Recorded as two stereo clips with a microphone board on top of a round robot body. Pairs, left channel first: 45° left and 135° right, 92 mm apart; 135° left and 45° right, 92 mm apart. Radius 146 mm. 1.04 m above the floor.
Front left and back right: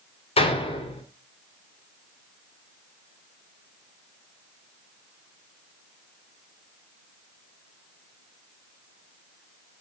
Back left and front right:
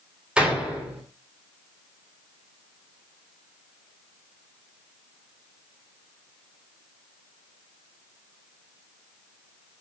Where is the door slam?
35° left, 3.5 m.